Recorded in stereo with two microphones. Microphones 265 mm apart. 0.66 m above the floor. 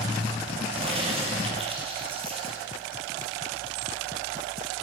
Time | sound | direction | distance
0.7 | a crack | 20° right (ahead or behind) | 3.5 m